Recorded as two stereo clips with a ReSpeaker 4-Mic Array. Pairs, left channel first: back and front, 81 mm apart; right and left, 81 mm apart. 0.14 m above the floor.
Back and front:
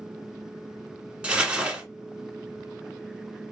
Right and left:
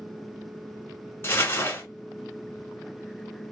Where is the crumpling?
65° right, 1.2 m.